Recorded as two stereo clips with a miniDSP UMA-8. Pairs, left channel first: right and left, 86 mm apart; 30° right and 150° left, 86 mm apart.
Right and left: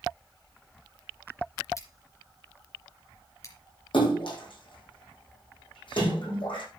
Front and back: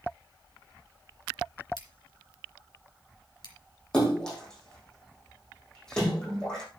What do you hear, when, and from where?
1.8 s scissors: 45° right, 2.5 m
3.9 s a splash: 110° right, 5.5 m